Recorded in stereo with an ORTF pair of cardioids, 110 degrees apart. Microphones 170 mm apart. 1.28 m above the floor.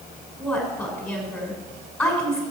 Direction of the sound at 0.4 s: 5° left.